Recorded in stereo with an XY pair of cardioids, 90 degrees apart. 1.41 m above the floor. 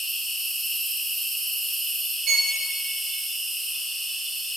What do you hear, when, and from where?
0.0 s an insect: 65° right, 2 m
2.3 s a violin: 65° right, 0.8 m